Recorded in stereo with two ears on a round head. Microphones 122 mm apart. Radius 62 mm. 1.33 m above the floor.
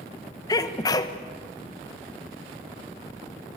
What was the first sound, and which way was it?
A sneeze, 25° left (ahead or behind).